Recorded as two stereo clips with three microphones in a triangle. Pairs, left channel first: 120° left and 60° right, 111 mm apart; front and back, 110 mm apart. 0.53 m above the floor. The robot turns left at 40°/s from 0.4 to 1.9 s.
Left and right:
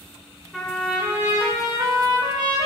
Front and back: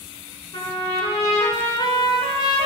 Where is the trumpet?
35° left, 1.8 m; by 2.7 s 20° right, 1.8 m.